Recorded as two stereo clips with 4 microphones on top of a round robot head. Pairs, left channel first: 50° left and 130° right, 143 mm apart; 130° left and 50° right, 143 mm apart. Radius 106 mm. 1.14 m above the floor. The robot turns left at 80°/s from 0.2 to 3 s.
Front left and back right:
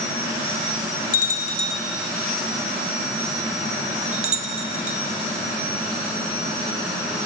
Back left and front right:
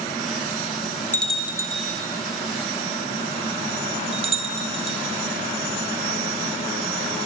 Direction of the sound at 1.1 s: 55° left.